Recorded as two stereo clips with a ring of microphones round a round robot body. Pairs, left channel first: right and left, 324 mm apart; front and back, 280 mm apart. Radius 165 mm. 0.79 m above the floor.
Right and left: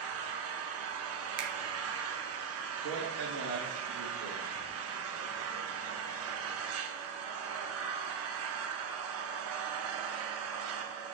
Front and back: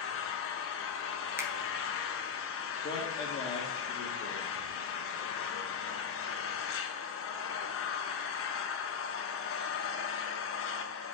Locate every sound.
0.0 s an engine running: 45° left, 0.8 m
1.4 s a finger snap: 100° left, 0.9 m
2.8 s a man speaking: 55° left, 1.4 m